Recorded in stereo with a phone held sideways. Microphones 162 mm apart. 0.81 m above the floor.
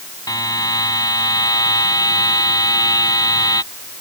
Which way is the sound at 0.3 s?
25° left (ahead or behind).